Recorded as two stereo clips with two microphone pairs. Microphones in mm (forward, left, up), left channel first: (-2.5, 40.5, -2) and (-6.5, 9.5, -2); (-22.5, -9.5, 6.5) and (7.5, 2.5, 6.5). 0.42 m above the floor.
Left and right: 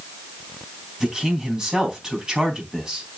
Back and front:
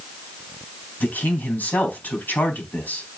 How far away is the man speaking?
About 4 m.